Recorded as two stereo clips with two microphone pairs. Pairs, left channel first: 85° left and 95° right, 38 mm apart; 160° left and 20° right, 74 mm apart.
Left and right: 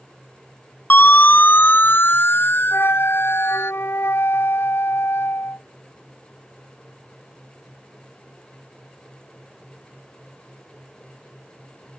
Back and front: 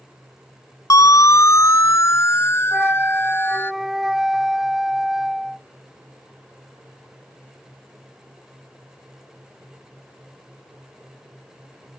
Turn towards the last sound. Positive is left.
turn(degrees=70)